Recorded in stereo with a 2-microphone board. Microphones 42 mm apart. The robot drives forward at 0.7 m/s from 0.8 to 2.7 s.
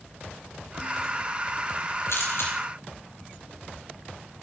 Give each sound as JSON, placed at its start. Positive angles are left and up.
{"t": 2.1, "sound": "a camera shutter", "side_deg": 70, "distance_m": 5.0}